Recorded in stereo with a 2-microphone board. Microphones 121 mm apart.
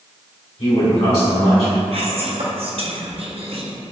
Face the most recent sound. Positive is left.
turn(degrees=-60)  # may be behind; listen again after turning